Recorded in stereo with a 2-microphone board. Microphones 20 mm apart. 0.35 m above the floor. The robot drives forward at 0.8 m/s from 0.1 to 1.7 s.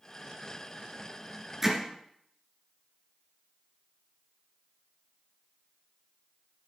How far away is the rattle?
No rattle in this recording.